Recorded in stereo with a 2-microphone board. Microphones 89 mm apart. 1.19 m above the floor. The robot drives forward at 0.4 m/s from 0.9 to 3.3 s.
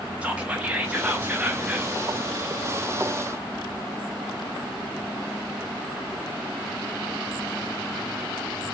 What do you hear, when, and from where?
0.2 s whispering: 15° right (ahead or behind), 1.2 m; by 1.9 s 20° right (ahead or behind), 0.9 m